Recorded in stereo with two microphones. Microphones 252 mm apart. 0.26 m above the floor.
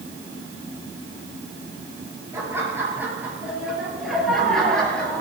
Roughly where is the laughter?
Centre.